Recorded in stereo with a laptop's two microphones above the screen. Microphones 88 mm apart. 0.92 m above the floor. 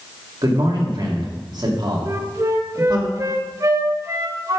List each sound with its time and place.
0.4 s a man speaking: 55° right (ahead or behind), 1.8 m
2.0 s a flute: 35° right (ahead or behind), 0.7 m